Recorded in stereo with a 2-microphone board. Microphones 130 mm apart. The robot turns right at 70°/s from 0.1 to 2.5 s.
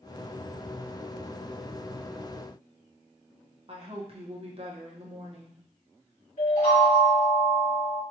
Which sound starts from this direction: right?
A woman speaking, at 3.7 s.